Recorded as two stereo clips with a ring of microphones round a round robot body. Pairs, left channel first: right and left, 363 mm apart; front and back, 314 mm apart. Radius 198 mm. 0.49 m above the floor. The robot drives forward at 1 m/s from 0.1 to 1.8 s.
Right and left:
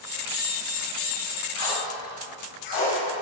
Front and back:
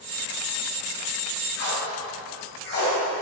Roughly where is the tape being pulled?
Ahead right.